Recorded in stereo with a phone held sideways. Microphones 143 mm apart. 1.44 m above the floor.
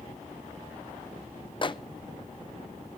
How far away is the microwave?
About 0.6 m.